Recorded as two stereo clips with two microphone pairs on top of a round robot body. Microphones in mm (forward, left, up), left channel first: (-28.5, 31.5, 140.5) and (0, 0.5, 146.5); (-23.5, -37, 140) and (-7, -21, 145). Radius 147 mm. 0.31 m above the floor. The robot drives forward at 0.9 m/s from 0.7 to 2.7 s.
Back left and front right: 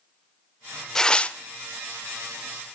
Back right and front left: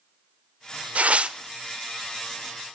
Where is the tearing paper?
60° left, 0.9 m; by 1.4 s 95° left, 0.8 m.